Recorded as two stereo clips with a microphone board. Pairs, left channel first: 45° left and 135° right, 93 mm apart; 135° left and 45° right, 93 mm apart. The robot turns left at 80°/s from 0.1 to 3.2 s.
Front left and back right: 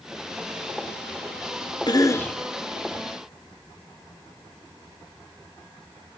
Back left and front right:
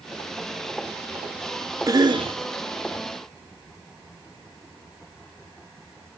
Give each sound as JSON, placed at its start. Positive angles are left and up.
{"t": 1.9, "sound": "a cough", "azimuth_deg": 5, "distance_m": 1.3}